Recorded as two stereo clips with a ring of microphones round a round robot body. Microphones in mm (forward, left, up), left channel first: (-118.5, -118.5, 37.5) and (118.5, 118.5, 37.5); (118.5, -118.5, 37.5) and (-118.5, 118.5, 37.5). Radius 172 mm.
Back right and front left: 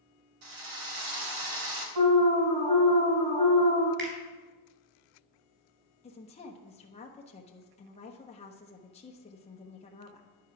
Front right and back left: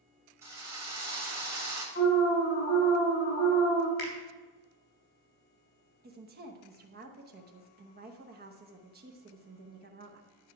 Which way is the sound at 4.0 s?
15° right.